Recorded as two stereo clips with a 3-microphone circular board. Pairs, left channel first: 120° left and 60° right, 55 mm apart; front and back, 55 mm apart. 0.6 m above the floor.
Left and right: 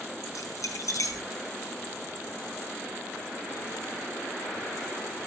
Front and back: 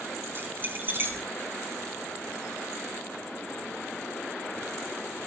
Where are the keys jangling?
130° left, 4 m.